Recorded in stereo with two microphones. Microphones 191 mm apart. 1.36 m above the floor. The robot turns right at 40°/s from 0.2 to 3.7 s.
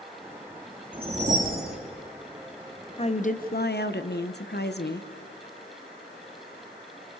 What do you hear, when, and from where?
0.9 s a whoosh: 155° right, 2 m; by 1.8 s 120° right, 2 m
3.0 s a woman speaking: 30° left (ahead or behind), 1.0 m; by 5.1 s 60° left (ahead or behind), 1.0 m